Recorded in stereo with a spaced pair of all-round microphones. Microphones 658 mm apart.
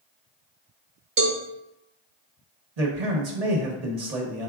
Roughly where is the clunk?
I don't hear a clunk.